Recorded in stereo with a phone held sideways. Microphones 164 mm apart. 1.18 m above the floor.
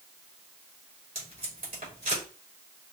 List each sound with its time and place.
1.1 s tape being pulled: 55° right (ahead or behind), 3.5 m